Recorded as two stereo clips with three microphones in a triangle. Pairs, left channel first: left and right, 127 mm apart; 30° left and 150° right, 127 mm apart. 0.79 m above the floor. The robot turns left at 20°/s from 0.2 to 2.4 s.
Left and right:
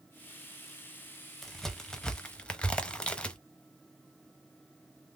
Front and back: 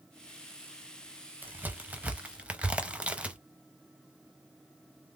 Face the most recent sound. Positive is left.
turn(degrees=155)